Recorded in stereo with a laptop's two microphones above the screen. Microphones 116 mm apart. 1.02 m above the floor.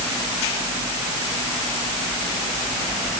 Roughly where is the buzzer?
I don't hear a buzzer.